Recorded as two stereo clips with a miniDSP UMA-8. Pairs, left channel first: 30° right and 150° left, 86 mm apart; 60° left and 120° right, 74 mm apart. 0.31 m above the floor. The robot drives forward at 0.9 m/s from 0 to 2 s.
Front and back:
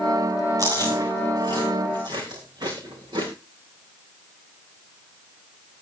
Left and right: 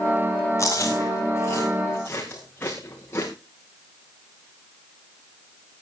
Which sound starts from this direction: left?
Chewing, at 0.6 s.